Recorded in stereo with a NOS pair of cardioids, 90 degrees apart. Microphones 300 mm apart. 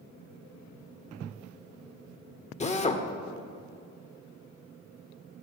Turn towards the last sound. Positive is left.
turn(degrees=20)